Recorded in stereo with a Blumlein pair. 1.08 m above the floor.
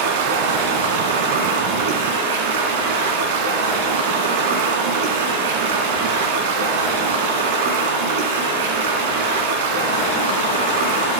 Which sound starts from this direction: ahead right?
Running water, at 0.0 s.